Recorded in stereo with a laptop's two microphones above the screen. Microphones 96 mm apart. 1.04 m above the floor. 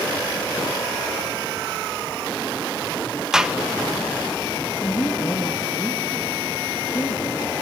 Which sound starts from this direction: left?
A woman speaking, at 4.8 s.